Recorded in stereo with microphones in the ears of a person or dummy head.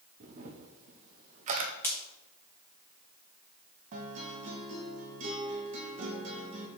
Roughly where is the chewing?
I don't hear chewing.